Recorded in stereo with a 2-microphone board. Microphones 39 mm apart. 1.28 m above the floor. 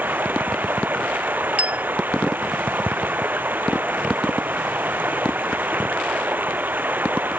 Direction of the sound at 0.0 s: 55° right (ahead or behind).